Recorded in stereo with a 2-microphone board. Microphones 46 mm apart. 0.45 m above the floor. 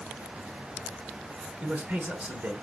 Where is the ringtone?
No ringtone in this recording.